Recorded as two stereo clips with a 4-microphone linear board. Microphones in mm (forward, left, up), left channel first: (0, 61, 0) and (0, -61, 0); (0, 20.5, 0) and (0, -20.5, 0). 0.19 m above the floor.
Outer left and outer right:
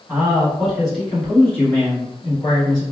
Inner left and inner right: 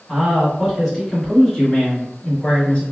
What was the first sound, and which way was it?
A man speaking, 15° right (ahead or behind).